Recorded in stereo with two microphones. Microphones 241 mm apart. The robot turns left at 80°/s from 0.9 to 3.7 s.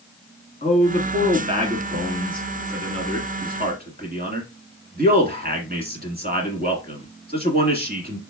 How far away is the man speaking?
About 1.5 m.